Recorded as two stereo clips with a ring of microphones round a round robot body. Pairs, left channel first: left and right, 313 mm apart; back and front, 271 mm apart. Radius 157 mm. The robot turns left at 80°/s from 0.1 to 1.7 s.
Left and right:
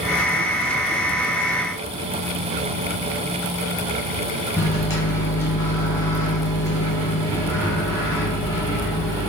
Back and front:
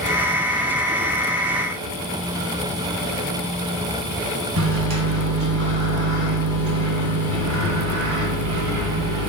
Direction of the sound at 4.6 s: 10° left.